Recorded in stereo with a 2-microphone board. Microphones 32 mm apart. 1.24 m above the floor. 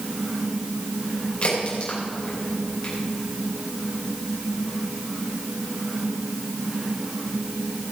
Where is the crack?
40° left (ahead or behind), 5 m.